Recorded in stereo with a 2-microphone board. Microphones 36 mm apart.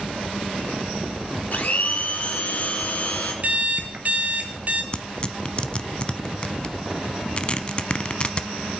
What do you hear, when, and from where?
1.5 s a blender: 50° left (ahead or behind), 2.5 m
3.4 s an alarm clock: 45° right (ahead or behind), 1.9 m
4.9 s tearing paper: 30° left (ahead or behind), 0.7 m